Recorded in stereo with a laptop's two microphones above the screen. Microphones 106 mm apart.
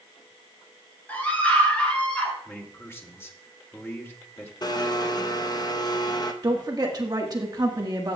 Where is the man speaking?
20° left (ahead or behind), 2.5 m.